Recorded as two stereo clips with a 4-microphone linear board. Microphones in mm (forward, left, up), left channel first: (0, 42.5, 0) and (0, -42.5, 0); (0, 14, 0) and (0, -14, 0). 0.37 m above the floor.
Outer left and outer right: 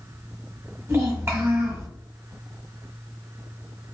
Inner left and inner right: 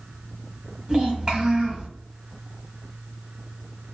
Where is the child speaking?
30° right (ahead or behind), 1.2 m.